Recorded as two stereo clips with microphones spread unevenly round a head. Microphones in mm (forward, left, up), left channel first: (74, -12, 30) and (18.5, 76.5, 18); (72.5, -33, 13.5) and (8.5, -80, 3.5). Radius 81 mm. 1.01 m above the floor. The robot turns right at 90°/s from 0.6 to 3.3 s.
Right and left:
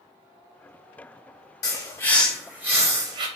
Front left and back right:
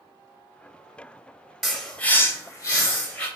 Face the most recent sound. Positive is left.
turn(degrees=110)